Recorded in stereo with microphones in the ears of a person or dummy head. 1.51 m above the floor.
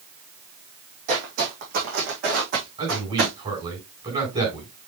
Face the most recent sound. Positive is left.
turn(degrees=-30)  # may be behind; listen again after turning